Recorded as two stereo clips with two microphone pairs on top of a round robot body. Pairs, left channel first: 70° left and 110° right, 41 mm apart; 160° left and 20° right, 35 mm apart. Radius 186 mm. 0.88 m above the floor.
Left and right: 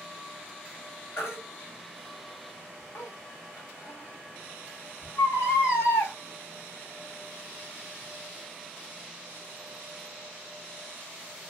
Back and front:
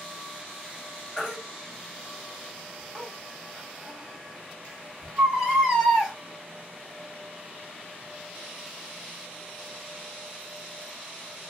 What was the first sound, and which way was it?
A baby crying, 70° left.